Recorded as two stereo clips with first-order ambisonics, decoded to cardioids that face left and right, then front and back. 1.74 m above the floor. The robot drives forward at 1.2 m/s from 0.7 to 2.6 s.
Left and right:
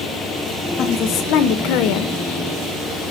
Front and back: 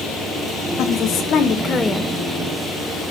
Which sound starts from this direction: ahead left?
A woman speaking, at 0.8 s.